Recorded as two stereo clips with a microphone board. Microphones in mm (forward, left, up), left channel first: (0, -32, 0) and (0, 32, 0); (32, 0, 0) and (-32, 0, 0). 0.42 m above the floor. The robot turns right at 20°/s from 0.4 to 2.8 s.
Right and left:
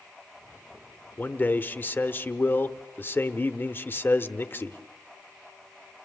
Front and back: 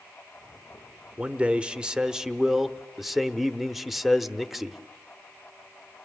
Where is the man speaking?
125° right, 0.9 m; by 4.8 s 95° right, 0.9 m.